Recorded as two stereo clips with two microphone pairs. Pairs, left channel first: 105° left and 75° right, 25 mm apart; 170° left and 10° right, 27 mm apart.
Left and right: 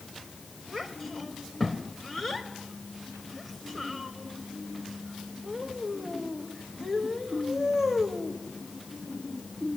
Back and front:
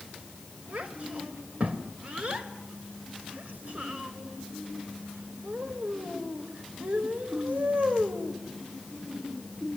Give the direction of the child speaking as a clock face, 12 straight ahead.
11 o'clock.